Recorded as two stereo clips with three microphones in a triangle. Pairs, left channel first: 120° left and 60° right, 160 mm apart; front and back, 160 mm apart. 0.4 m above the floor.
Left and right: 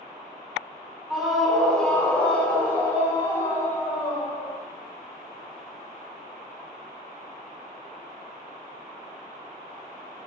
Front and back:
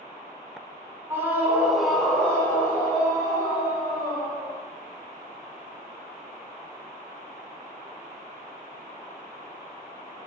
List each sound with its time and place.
1.1 s a scream: 145° right, 1.2 m; by 4.6 s 50° left, 2 m